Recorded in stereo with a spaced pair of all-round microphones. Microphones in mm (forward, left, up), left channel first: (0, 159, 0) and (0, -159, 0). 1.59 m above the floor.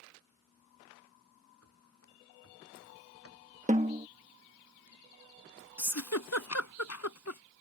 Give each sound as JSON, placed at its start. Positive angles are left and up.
{"t": 1.6, "sound": "running footsteps", "side_deg": 45}
{"t": 3.7, "sound": "a snare drum", "side_deg": -25}
{"t": 5.8, "sound": "a giggle", "side_deg": 55}